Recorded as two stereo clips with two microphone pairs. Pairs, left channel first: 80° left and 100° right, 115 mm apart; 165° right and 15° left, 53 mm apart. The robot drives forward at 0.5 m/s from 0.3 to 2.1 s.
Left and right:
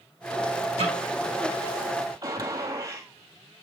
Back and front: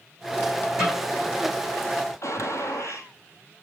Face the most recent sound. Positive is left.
turn(degrees=-155)